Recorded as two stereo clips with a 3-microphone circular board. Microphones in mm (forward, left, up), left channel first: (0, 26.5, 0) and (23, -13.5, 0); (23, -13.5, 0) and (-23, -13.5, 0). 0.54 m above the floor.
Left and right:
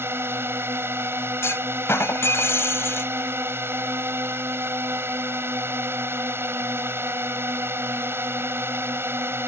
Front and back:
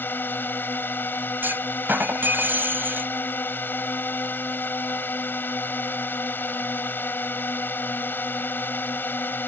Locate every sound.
0.0 s a drone: 40° right
1.4 s a clunk: 140° left